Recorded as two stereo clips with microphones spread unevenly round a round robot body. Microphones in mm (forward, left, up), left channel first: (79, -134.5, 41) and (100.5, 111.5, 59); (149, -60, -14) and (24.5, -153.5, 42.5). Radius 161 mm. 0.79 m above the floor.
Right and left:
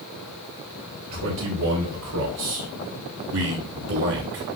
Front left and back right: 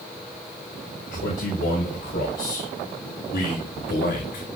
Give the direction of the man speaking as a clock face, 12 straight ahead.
9 o'clock.